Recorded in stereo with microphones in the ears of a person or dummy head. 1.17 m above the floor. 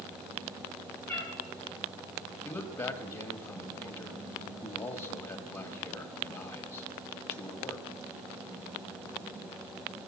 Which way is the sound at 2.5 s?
25° left (ahead or behind).